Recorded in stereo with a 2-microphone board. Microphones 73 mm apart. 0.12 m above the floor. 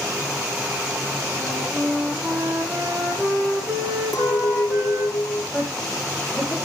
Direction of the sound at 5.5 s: 15° left (ahead or behind).